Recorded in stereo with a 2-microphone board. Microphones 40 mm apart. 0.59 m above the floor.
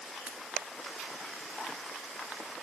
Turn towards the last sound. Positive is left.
turn(degrees=-35)  # may be behind; listen again after turning